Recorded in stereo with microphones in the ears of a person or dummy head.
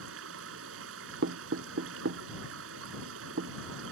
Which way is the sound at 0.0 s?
75° right (ahead or behind).